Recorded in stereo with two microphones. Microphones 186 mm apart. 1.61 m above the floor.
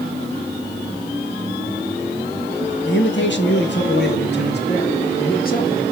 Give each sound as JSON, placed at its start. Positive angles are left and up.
{"t": 2.9, "sound": "a man speaking", "side_deg": 85, "distance_m": 2.5}